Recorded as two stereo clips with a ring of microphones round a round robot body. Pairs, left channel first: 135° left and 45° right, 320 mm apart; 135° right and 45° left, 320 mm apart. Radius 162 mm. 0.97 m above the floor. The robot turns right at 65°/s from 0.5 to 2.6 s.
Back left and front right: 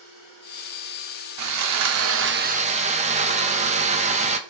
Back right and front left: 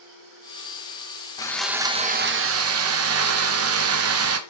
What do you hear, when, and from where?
1.4 s sawing: 60° right, 1.0 m; by 4.4 s 20° left, 1.0 m